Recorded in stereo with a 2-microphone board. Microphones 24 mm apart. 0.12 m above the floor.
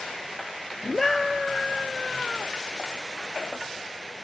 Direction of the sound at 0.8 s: 10° left (ahead or behind).